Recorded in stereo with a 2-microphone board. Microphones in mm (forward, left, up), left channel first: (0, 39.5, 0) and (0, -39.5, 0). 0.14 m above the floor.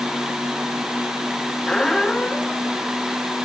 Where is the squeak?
5° left (ahead or behind), 1.0 m.